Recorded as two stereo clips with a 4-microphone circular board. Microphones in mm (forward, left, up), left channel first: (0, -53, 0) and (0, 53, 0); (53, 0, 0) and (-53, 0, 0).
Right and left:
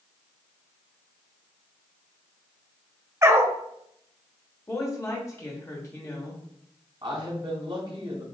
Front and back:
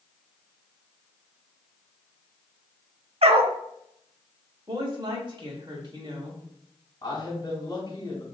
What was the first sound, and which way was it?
A dog barking, 155° left.